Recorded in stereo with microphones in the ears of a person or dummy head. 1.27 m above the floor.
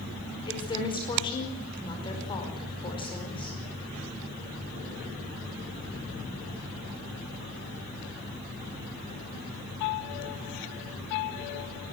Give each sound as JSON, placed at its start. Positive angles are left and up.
{"t": 0.5, "sound": "a woman speaking", "side_deg": 30, "distance_m": 5.0}